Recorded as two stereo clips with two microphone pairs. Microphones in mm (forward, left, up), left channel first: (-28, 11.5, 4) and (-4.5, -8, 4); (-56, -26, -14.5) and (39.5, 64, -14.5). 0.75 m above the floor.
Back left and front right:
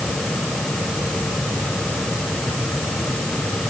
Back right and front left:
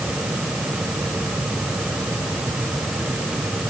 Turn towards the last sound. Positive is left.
No sound to turn to.